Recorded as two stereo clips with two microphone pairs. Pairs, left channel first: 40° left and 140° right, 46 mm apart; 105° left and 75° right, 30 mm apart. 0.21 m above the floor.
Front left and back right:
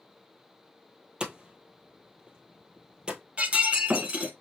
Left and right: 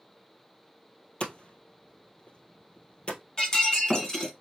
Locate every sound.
1.2 s hammering: 155° left, 1.2 m
3.4 s breaking glass: 170° left, 1.3 m